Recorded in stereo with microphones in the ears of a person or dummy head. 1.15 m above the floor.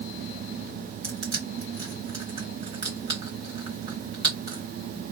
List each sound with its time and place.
1.0 s crushing: 30° right (ahead or behind), 1.2 m